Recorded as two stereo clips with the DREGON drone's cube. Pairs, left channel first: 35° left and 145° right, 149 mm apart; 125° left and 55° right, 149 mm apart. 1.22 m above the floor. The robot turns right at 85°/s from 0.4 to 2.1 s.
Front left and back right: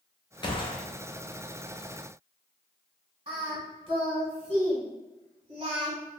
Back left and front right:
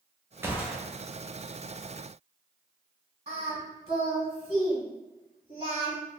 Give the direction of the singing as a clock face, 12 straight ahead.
3 o'clock.